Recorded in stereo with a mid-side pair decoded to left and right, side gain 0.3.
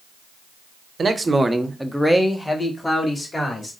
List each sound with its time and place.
1.0 s a man speaking: 50° right, 0.8 m; by 3.7 s 40° left, 2 m